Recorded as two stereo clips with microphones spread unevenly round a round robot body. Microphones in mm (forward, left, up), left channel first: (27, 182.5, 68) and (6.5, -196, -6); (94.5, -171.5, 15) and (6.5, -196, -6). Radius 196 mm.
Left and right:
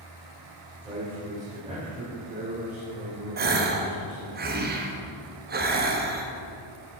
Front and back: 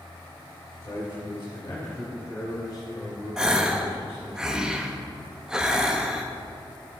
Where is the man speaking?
10° right, 2.5 m; by 4.4 s 35° right, 4.5 m.